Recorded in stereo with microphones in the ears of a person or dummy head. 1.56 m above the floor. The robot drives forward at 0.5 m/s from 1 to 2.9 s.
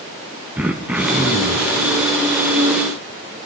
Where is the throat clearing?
5° right (ahead or behind), 0.6 m.